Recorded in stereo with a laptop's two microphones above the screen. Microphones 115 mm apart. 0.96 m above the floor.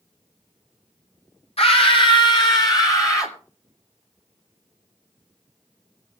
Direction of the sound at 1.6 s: 55° left (ahead or behind).